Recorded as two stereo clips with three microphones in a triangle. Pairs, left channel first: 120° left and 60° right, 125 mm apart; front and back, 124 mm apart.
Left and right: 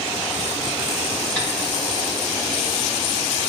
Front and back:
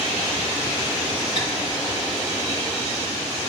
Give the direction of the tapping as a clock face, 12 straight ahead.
5 o'clock.